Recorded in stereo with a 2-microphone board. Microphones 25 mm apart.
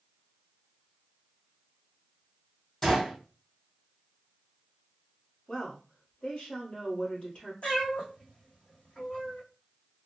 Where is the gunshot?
30° left (ahead or behind), 2.5 m.